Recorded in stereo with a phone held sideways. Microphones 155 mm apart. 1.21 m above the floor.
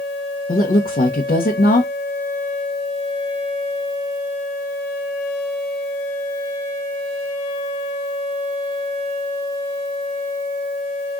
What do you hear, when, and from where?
0.5 s a woman speaking: 75° left (ahead or behind), 1.0 m